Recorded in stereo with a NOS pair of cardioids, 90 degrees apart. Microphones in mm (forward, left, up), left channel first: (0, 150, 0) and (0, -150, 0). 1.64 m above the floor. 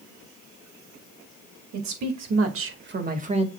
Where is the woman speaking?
70° right, 3 m; by 3.5 s 15° right, 2.5 m.